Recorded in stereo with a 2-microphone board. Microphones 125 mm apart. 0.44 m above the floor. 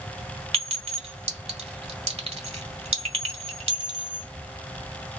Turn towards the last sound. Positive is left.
turn(degrees=-60)  # may be behind; listen again after turning